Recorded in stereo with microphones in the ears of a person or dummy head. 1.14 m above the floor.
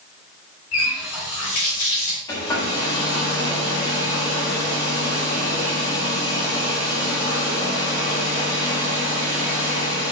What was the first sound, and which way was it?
A running tap, 80° left.